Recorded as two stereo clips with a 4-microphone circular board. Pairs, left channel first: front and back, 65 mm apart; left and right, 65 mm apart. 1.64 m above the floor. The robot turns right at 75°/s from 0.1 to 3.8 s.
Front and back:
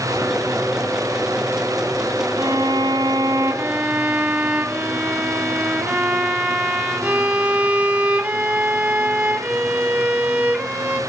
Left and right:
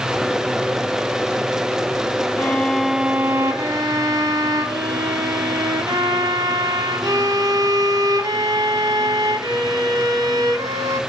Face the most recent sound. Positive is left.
turn(degrees=-110)